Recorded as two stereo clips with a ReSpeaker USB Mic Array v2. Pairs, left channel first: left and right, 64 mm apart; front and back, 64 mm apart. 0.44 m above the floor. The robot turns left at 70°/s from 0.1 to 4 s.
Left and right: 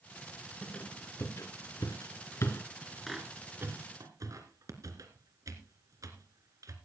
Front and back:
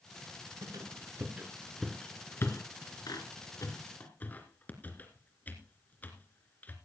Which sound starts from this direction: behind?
A squeak, at 0.6 s.